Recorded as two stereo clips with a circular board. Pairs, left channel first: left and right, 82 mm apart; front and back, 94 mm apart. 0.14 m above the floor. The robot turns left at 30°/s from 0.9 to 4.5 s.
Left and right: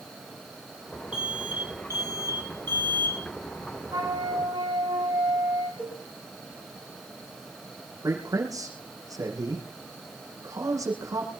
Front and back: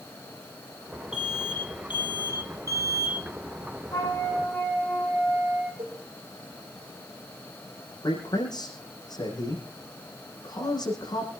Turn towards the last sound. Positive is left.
turn(degrees=-45)